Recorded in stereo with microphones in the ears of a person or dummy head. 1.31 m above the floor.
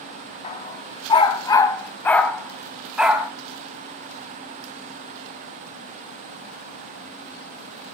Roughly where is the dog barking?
Left.